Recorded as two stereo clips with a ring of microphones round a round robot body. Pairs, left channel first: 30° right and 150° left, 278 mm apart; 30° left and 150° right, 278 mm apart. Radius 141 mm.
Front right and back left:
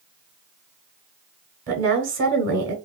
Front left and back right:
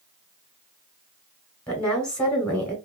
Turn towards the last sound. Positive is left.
turn(degrees=115)